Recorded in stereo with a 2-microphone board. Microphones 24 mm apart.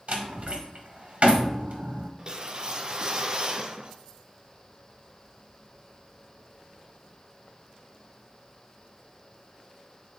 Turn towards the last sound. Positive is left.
turn(degrees=-35)  # may be behind; listen again after turning